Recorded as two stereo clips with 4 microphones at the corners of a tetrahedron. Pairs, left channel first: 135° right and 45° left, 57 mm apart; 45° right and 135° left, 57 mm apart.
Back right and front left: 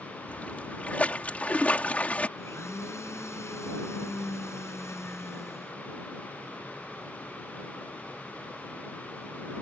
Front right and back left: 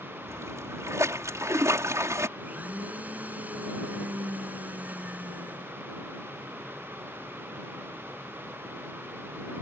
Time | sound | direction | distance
0.3 | a splash | 160° left | ?
2.4 | a blender | 165° right | ?